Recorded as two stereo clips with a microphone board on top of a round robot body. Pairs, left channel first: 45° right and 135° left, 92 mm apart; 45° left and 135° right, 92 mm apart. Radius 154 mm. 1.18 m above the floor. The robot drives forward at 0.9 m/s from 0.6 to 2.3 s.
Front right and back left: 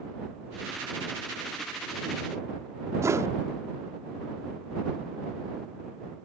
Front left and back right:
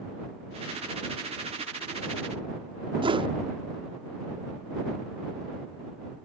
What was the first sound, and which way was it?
A whoosh, 165° right.